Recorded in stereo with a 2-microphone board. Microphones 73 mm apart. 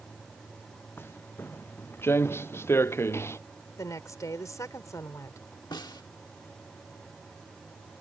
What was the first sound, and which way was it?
Footsteps, 35° left (ahead or behind).